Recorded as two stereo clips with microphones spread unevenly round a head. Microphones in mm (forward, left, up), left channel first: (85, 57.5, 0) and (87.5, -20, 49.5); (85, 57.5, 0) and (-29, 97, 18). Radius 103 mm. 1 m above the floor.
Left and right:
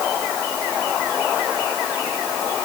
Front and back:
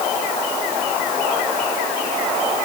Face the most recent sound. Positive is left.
No sound to turn to.